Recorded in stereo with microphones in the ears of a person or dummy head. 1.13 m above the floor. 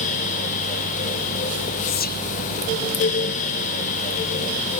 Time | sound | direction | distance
1.9 | whispering | 50° left (ahead or behind) | ?